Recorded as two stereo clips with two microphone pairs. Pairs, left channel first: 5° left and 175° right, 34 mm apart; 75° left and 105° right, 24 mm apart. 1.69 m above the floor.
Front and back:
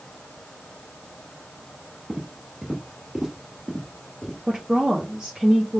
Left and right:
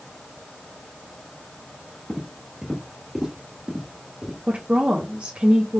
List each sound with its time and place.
2.1 s footsteps: 170° right, 1.9 m; by 4.4 s 55° right, 1.9 m
4.5 s a woman speaking: 105° right, 0.8 m